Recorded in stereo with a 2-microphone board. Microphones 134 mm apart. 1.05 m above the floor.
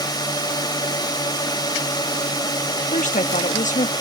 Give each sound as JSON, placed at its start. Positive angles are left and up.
{"t": 0.0, "sound": "a drone", "side_deg": 30}
{"t": 2.9, "sound": "a woman speaking", "side_deg": 70}